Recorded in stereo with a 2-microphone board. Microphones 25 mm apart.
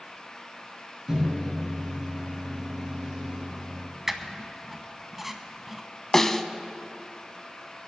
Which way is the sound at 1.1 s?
30° right (ahead or behind).